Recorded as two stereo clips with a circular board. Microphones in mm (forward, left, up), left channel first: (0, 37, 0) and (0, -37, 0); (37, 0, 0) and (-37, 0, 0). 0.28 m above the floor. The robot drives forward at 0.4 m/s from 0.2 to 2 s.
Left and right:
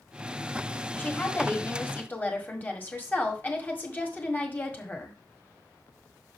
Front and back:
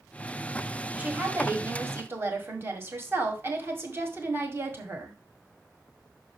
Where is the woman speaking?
130° left, 1.7 m; by 5.2 s 145° left, 1.9 m.